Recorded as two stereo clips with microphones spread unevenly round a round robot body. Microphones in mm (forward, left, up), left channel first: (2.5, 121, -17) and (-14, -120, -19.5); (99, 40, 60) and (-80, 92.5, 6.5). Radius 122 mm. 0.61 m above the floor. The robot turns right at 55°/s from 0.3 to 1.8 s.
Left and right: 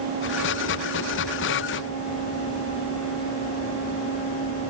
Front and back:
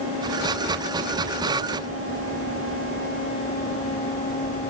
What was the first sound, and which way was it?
Only background noise.